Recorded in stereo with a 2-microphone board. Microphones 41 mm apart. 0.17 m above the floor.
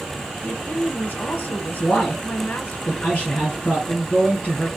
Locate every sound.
0.4 s a woman speaking: 45° left (ahead or behind), 1.5 m
1.8 s a man speaking: 35° left (ahead or behind), 2.5 m